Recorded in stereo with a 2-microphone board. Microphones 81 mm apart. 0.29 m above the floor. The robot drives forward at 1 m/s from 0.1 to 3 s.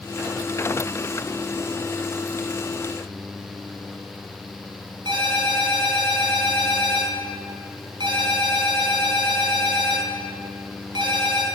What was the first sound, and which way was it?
A ringtone, 65° right (ahead or behind).